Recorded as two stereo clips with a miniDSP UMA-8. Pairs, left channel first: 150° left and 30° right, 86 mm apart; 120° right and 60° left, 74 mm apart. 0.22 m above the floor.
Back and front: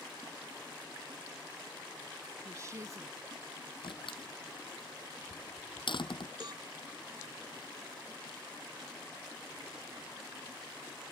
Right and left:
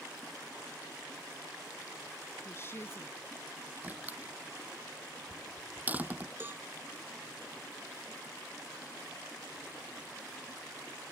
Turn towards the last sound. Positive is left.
turn(degrees=0)